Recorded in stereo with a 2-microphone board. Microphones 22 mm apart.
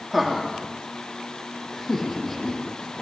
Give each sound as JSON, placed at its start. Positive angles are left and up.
{"t": 0.1, "sound": "laughter", "side_deg": 0, "distance_m": 8.0}